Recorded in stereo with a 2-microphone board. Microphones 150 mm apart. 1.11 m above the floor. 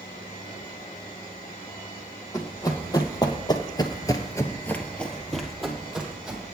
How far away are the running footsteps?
About 2.5 m.